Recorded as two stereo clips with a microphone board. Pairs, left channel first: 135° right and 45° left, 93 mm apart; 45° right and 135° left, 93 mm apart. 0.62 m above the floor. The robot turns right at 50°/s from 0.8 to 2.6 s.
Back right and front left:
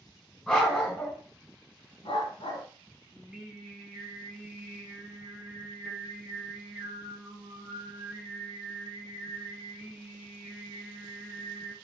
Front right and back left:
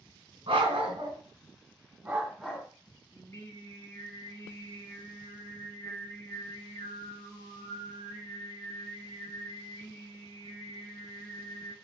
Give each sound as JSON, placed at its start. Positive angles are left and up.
{"t": 0.5, "sound": "a dog barking", "azimuth_deg": 140, "distance_m": 1.6}
{"t": 3.1, "sound": "singing", "azimuth_deg": -30, "distance_m": 1.2}